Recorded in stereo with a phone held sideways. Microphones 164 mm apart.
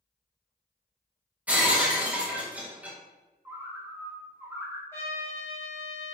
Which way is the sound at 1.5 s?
10° right (ahead or behind).